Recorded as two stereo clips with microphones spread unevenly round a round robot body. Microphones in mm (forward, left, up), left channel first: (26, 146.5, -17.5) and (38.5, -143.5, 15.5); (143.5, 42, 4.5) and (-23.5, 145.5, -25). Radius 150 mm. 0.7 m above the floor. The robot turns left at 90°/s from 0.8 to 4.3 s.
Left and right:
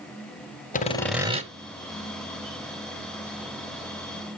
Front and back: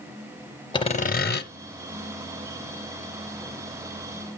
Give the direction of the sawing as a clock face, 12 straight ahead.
11 o'clock.